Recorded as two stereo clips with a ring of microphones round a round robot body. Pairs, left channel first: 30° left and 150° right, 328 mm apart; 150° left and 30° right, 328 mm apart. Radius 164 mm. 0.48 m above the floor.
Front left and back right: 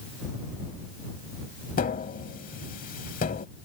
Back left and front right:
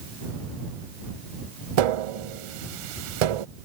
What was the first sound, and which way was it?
Tapping, 35° right.